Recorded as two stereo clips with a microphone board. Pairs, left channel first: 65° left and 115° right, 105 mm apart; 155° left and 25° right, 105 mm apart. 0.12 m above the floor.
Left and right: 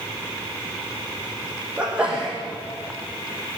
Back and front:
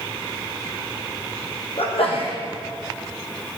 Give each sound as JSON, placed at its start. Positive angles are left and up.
{"t": 1.8, "sound": "a sneeze", "azimuth_deg": 170, "distance_m": 6.0}